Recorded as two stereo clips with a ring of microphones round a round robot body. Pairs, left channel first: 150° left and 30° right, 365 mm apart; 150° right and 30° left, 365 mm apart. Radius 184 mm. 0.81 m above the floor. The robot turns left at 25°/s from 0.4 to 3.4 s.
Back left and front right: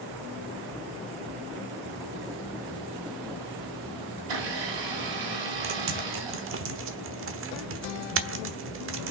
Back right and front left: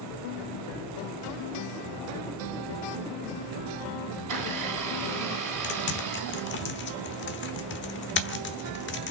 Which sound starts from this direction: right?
Typing on a keyboard, at 5.6 s.